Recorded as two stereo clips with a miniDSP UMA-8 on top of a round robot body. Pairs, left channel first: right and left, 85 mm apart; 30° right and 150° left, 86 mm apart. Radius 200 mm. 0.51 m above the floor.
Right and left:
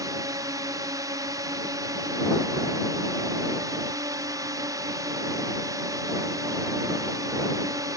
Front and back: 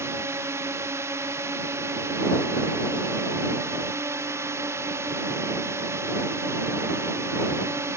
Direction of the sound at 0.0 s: 105° left.